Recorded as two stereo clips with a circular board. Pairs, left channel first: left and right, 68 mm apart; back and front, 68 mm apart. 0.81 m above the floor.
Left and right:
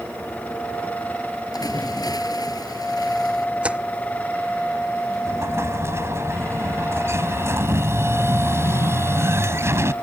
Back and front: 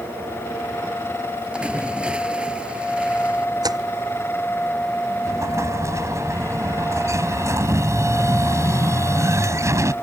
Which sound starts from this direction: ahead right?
An explosion, at 5.2 s.